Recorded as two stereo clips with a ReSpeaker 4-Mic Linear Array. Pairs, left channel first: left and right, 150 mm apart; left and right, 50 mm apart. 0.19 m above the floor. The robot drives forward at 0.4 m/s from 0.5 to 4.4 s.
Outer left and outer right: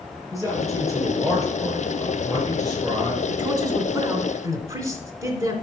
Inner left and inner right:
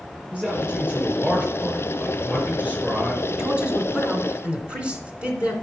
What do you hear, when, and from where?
0.3 s a man speaking: 20° right (ahead or behind), 4 m; by 3.2 s 25° right (ahead or behind), 3 m
3.3 s a man speaking: 25° right (ahead or behind), 1.9 m; by 5.5 s 20° right (ahead or behind), 2 m